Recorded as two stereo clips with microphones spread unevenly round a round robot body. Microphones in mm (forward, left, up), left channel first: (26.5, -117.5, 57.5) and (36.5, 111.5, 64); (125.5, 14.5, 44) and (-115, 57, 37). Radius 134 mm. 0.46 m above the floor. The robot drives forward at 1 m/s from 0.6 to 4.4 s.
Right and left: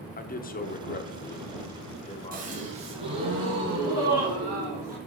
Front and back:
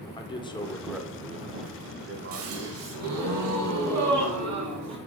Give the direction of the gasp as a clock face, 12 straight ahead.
7 o'clock.